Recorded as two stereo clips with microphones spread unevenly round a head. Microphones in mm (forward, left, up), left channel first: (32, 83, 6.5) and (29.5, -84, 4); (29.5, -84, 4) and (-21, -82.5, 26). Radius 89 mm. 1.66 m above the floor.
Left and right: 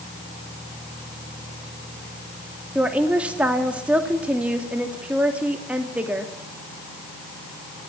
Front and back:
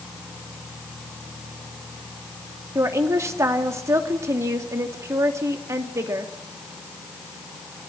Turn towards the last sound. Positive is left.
turn(degrees=-175)